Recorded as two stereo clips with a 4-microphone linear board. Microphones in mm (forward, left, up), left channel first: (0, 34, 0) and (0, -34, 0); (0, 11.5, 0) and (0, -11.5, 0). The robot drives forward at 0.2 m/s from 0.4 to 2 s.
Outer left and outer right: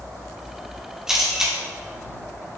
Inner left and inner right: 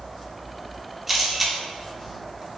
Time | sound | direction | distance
1.1 | a camera shutter | 5° right (ahead or behind) | 1.0 m